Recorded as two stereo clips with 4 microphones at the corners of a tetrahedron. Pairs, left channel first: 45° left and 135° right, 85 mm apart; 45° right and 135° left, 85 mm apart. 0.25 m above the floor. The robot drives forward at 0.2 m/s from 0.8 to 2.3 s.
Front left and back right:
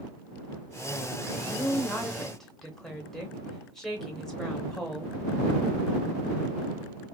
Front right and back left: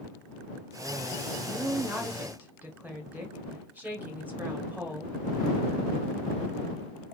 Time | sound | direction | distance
1.4 | a woman speaking | 95° left | 0.9 m